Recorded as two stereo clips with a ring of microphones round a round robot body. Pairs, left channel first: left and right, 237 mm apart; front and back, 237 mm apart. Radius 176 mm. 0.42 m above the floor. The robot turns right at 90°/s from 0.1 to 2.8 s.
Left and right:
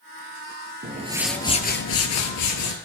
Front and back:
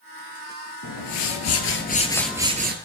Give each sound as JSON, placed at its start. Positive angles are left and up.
{"t": 0.8, "sound": "a whoosh", "azimuth_deg": -40, "distance_m": 2.5}